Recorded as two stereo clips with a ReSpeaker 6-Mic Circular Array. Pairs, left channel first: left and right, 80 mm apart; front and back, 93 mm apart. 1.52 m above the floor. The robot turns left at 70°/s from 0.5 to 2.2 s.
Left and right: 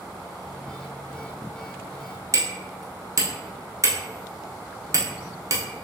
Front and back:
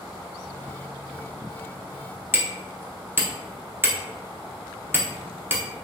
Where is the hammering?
120° right, 0.7 m.